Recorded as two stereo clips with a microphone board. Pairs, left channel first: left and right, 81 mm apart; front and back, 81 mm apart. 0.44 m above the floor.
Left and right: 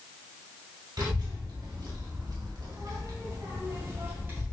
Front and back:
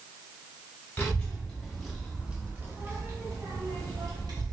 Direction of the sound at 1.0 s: 70° right.